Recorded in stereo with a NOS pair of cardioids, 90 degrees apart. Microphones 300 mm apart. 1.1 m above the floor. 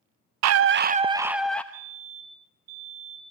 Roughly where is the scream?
Ahead right.